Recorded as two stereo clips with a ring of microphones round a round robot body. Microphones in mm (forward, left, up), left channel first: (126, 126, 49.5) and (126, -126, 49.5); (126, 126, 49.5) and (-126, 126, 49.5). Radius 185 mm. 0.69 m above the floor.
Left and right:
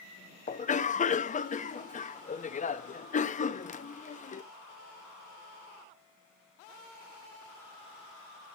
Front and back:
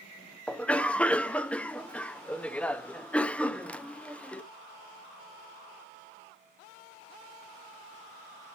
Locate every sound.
0.5 s a cough: 80° left, 0.7 m